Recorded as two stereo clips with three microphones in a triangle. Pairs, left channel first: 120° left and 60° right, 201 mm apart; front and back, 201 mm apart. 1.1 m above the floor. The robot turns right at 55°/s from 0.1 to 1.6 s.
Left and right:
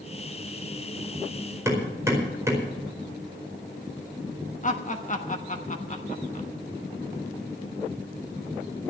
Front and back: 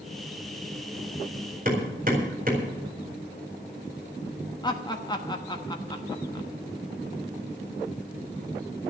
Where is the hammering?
135° right, 4.5 m.